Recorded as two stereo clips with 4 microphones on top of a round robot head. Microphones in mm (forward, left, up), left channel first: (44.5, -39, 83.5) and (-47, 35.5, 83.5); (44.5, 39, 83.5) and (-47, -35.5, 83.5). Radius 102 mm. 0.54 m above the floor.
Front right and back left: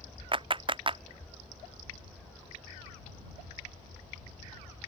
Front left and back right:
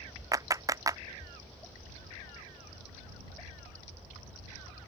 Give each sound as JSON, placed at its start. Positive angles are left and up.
{"t": 0.3, "sound": "a clap", "azimuth_deg": 165}